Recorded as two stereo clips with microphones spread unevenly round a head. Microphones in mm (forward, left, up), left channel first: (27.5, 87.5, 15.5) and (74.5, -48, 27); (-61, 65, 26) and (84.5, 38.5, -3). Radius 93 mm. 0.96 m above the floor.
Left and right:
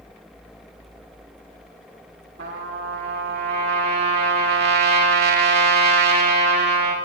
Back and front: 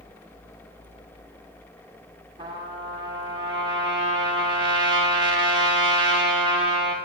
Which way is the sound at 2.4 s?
75° right.